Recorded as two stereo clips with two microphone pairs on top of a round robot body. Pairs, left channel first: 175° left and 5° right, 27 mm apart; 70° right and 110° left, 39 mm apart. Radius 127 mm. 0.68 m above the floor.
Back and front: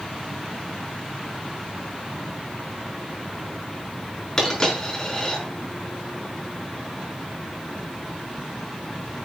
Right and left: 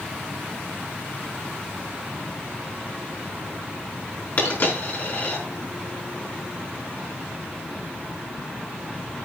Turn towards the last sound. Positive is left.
turn(degrees=-115)